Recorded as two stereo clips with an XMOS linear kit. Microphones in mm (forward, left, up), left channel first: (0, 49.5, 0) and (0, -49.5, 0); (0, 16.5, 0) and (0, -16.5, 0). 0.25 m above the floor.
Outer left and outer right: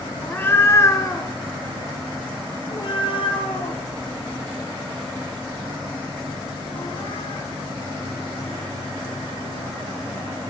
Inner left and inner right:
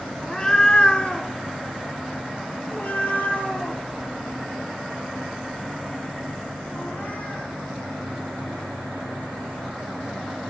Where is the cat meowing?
15° left (ahead or behind), 1.0 m; by 7.5 s 75° left (ahead or behind), 4.5 m.